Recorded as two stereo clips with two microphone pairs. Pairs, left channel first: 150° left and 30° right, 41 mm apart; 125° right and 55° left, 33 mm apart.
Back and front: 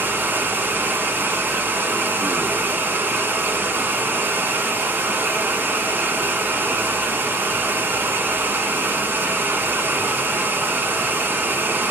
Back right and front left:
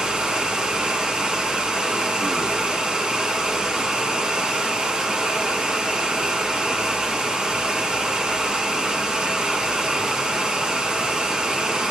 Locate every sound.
0.0 s running water: 10° right, 1.4 m